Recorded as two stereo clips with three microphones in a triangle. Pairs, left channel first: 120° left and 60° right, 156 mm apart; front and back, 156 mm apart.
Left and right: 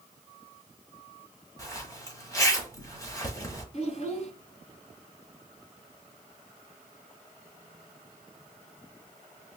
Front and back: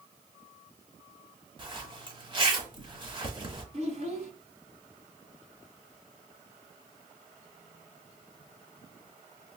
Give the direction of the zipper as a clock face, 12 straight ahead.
6 o'clock.